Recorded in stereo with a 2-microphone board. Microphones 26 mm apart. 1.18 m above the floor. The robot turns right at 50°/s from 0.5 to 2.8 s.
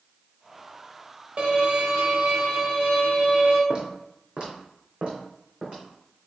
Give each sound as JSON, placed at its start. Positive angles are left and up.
{"t": 1.4, "sound": "a violin", "azimuth_deg": -110, "distance_m": 1.4}
{"t": 3.7, "sound": "footsteps", "side_deg": -40, "distance_m": 1.7}